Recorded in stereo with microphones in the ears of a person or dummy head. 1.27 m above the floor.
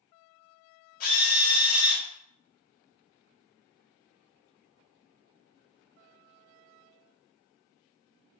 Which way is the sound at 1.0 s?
50° left (ahead or behind).